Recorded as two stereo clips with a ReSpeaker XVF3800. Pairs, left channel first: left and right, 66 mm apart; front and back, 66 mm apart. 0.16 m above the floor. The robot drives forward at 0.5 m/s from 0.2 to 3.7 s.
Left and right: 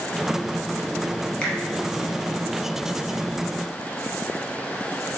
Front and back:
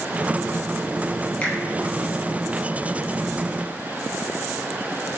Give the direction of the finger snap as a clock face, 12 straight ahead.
11 o'clock.